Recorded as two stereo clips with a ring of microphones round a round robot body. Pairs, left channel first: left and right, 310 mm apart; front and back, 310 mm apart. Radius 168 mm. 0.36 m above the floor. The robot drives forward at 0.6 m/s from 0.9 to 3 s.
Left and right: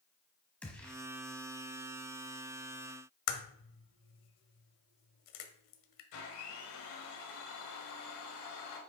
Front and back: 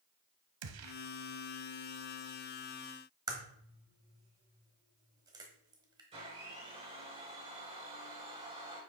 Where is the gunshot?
175° left, 1.1 m.